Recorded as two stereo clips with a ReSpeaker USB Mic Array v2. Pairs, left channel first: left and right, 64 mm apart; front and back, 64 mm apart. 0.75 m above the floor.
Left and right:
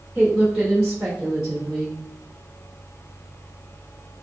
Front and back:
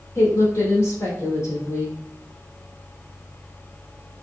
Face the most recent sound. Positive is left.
turn(degrees=-5)